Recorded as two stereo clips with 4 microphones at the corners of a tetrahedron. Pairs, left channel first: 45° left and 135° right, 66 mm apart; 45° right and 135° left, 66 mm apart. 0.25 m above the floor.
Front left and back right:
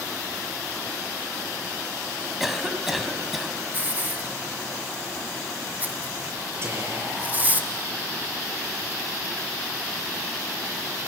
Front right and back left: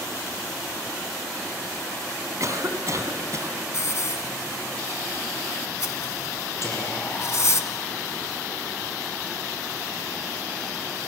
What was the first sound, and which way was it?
A cough, 140° left.